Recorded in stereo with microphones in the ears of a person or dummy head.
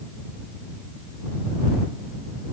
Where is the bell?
I don't hear a bell.